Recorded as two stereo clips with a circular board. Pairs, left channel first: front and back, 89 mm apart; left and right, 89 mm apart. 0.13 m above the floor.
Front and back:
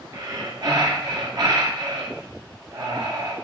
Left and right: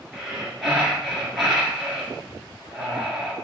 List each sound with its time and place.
0.1 s breathing: straight behind, 1.4 m